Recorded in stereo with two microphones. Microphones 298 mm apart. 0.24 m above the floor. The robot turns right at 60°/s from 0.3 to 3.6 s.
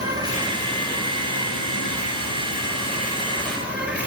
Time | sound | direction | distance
0.0 | an insect | 15° right | 1.8 m